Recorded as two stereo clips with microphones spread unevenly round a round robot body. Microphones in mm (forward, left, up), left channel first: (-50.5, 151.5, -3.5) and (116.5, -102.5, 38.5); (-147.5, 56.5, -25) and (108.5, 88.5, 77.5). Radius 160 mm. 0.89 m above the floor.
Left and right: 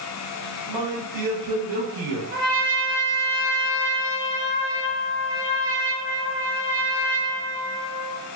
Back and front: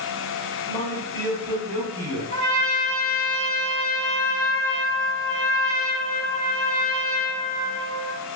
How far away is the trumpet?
About 1.8 m.